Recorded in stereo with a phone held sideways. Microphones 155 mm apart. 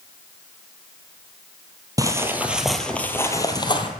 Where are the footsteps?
25° right (ahead or behind), 1.2 m; by 3.9 s 35° left (ahead or behind), 1.3 m.